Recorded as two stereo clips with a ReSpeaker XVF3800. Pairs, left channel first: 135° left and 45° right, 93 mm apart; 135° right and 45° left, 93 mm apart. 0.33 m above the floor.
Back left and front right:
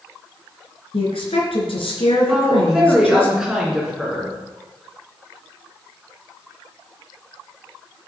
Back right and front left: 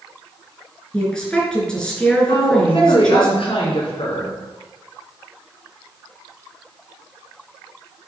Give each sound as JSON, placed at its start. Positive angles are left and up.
{"t": 0.9, "sound": "a woman speaking", "azimuth_deg": 145, "distance_m": 4.0}
{"t": 2.3, "sound": "a woman speaking", "azimuth_deg": -125, "distance_m": 4.0}